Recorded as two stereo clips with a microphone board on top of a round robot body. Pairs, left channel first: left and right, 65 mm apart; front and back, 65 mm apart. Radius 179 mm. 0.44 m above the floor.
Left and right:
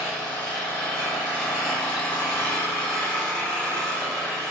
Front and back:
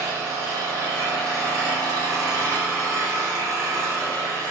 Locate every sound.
0.0 s an engine running: 155° left, 1.5 m